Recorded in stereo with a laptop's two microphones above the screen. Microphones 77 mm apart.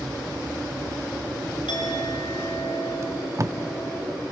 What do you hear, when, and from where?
1.7 s a clink: 80° left, 5 m
3.0 s tape being pulled: 40° right (ahead or behind), 1.0 m